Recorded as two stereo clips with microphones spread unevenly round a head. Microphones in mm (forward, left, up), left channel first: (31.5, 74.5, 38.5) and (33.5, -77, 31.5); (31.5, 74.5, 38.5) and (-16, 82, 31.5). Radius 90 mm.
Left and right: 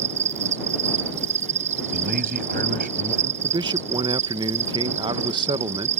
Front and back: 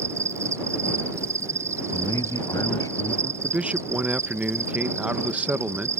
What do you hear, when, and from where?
0.0 s an insect: 140° right
1.9 s a man speaking: 60° right
3.4 s a man speaking: 140° right